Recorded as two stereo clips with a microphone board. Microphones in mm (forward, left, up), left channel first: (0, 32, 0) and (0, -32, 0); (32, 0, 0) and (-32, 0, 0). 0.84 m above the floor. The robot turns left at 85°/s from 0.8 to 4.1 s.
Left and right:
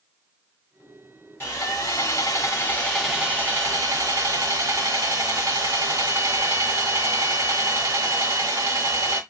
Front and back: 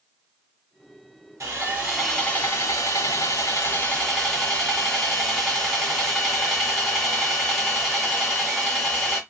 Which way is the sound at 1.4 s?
140° left.